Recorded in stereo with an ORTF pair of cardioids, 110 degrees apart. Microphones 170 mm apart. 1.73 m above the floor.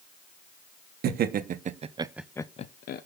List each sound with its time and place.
1.0 s laughter: 60° right, 1.8 m; by 3.0 s 60° left, 1.1 m